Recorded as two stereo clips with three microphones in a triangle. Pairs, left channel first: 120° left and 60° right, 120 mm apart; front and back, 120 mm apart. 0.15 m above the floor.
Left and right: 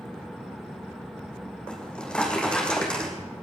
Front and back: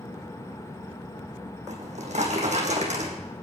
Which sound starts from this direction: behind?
A drawer, at 1.7 s.